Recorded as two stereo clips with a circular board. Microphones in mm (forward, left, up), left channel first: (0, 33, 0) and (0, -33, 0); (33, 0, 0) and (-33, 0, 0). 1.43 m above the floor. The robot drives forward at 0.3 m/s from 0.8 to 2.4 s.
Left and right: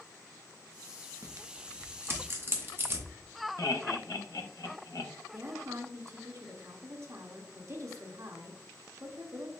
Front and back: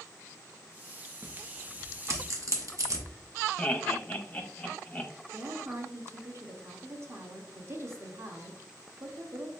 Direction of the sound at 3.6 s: 70° left.